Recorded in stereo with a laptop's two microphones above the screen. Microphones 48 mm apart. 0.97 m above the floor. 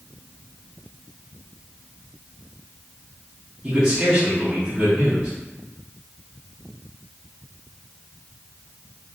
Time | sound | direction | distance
3.6 | a man speaking | 20° right (ahead or behind) | 1.4 m